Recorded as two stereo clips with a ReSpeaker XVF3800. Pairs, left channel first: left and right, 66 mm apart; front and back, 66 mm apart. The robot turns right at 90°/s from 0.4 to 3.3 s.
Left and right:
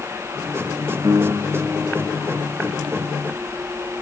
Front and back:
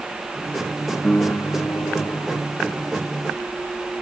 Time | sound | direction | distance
1.0 | a piano | 75° right | ?